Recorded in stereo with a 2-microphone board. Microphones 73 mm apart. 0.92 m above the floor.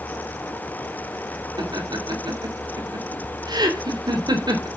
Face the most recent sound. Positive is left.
turn(degrees=-80)